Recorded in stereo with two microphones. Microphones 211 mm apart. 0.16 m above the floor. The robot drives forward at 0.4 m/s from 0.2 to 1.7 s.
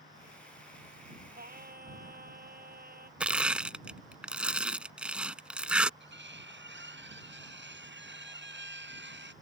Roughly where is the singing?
Right.